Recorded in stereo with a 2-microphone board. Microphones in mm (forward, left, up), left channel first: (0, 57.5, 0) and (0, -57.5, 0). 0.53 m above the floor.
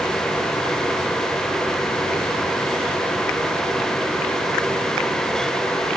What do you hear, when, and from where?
Only background noise.